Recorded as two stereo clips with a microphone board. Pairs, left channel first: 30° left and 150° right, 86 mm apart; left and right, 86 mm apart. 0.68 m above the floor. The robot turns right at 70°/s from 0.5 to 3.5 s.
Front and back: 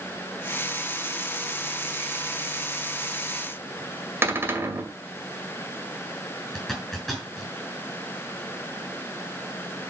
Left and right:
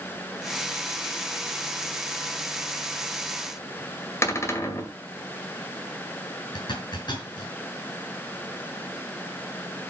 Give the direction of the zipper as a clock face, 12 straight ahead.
8 o'clock.